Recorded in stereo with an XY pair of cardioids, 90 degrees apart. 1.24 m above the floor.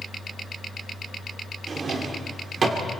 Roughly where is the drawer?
Ahead right.